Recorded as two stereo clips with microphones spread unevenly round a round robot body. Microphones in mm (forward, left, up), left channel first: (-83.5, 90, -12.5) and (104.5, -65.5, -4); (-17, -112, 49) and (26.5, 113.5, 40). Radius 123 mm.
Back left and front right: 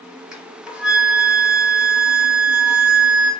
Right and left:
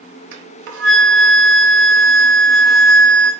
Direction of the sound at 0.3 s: 45° left.